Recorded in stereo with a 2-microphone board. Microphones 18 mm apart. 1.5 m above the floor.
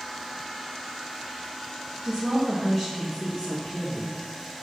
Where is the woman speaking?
15° right (ahead or behind), 2.0 m; by 4.2 s 80° left, 2.5 m.